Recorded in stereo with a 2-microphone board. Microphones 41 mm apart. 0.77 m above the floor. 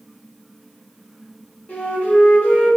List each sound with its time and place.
1.7 s a flute: 45° left (ahead or behind), 0.7 m